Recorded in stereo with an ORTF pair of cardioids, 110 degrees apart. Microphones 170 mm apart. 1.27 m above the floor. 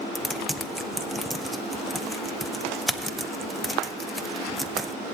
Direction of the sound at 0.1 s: Straight ahead.